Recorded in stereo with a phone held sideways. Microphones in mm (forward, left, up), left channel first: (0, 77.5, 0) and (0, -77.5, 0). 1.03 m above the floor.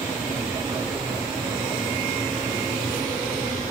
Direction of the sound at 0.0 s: 20° right (ahead or behind).